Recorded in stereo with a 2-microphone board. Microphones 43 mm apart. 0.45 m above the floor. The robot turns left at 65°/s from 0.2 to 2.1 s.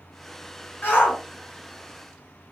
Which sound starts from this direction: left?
A shout, at 0.8 s.